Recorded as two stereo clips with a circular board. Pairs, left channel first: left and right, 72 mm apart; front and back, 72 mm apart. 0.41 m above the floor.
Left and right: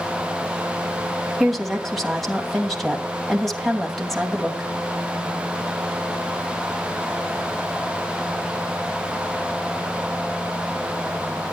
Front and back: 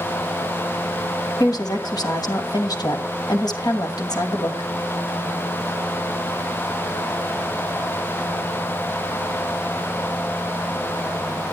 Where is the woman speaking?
5° left, 2.5 m.